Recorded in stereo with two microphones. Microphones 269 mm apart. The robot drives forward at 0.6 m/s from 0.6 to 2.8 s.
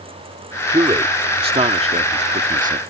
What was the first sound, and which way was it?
A man speaking, 15° right (ahead or behind).